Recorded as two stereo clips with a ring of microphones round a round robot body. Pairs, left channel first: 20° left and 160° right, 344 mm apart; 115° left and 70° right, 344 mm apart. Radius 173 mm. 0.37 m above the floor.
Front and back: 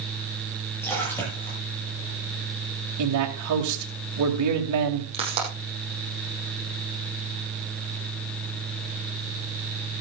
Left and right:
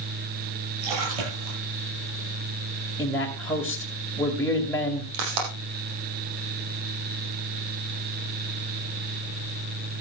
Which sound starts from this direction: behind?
A man speaking, at 3.0 s.